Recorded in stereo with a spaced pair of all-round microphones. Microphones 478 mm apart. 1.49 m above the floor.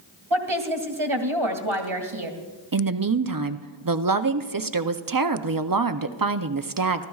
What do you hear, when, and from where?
0.3 s a woman speaking: 80° right, 2 m
2.7 s a woman speaking: 45° right (ahead or behind), 0.6 m